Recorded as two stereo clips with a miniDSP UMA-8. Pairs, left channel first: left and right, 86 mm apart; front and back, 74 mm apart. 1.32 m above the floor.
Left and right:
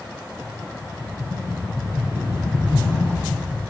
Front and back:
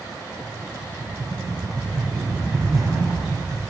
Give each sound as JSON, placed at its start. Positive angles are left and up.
{"t": 0.4, "sound": "a rattle", "azimuth_deg": -150, "distance_m": 7.0}